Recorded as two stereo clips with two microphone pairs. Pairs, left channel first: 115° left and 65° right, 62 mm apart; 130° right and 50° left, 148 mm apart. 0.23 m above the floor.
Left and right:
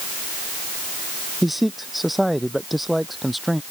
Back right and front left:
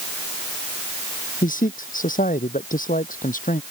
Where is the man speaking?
155° right.